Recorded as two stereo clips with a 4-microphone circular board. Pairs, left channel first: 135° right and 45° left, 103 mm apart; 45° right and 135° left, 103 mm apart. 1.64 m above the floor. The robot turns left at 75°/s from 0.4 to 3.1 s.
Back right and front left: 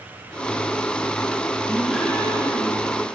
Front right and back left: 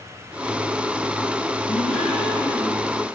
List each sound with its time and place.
1.7 s a gasp: 25° right, 7 m; by 2.9 s 115° right, 7 m